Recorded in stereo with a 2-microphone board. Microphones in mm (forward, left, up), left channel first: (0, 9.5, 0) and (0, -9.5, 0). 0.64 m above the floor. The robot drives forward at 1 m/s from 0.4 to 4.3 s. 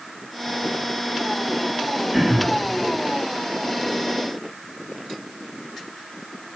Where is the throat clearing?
10° right (ahead or behind), 5 m.